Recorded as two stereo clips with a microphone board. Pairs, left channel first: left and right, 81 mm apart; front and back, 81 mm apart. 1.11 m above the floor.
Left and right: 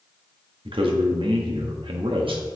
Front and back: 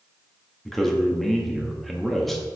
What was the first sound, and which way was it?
A man speaking, 90° right.